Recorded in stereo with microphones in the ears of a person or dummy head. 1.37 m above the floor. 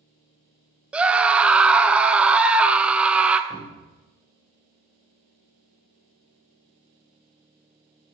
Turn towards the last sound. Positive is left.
turn(degrees=20)  # may be behind; listen again after turning